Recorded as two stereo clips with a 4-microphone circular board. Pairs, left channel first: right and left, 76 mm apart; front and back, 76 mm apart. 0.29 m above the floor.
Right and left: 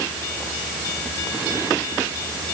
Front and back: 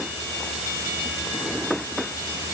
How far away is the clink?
No clink in this recording.